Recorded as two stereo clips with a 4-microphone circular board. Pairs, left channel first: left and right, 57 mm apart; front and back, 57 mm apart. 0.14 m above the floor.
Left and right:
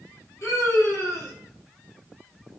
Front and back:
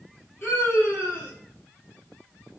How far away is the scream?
About 4 m.